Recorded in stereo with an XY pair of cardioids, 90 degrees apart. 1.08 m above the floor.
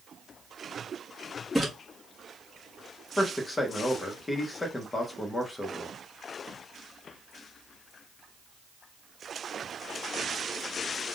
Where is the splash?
Straight ahead, 1.4 m.